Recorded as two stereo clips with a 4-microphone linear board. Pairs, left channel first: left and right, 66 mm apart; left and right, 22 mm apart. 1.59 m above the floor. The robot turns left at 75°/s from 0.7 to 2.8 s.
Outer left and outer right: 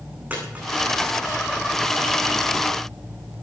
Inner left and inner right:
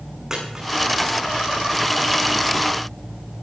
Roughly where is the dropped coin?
Right.